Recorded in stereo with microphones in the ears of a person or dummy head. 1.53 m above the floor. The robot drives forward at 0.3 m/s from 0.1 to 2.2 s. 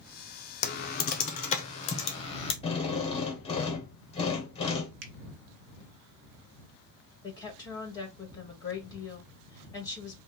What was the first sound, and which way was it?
Typing on a keyboard, 45° left (ahead or behind).